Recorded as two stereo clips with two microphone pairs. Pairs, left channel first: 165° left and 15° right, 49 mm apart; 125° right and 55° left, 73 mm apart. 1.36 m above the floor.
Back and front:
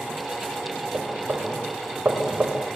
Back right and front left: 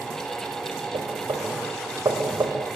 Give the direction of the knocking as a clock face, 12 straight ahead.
11 o'clock.